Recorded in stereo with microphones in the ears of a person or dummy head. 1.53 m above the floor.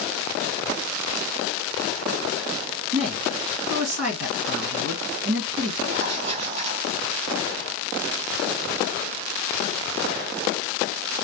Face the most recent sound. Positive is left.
turn(degrees=-40)  # may be behind; listen again after turning